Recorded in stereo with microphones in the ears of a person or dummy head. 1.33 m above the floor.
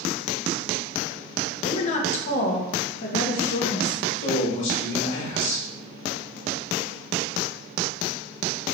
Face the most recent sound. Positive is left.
turn(degrees=70)  # may be behind; listen again after turning